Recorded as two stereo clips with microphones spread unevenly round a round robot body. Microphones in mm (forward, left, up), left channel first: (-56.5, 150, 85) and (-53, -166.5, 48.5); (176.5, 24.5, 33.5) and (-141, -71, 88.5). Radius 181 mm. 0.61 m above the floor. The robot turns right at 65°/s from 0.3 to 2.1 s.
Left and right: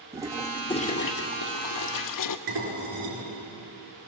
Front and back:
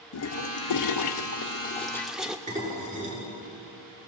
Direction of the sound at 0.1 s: 10° right.